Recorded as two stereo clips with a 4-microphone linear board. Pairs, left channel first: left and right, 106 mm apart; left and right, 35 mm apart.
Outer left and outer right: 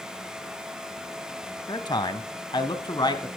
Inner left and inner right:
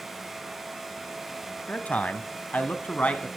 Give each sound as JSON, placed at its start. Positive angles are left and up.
{"t": 1.7, "sound": "a man speaking", "side_deg": 40, "distance_m": 1.3}